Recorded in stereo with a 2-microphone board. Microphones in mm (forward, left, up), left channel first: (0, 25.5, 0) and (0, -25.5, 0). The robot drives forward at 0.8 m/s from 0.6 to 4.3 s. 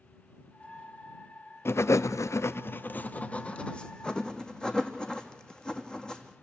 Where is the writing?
55° left (ahead or behind), 0.6 m; by 6.3 s 15° left (ahead or behind), 1.8 m.